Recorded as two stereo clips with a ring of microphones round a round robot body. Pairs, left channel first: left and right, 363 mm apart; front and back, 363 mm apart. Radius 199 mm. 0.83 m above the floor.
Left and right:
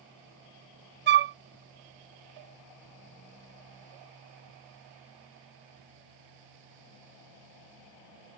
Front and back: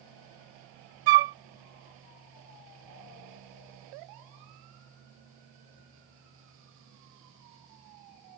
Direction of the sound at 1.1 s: 155° right.